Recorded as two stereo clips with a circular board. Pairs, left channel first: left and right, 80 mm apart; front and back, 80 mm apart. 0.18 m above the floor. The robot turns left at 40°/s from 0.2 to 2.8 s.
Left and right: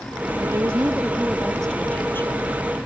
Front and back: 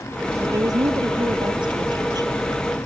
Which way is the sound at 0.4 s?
140° right.